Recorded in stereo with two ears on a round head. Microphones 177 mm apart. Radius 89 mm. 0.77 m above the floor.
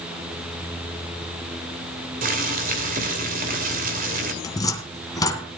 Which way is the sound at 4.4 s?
20° left (ahead or behind).